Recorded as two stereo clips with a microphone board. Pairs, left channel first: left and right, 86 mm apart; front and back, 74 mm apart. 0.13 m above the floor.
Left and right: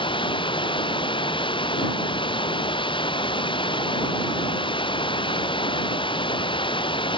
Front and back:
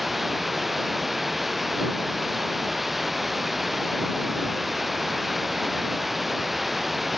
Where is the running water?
90° left.